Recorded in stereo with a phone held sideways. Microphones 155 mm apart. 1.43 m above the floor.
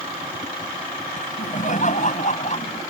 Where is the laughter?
55° left (ahead or behind); by 2.8 s 45° left (ahead or behind).